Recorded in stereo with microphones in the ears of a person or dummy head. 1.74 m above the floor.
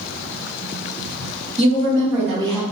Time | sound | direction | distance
1.6 | a woman speaking | 35° right (ahead or behind) | 1.1 m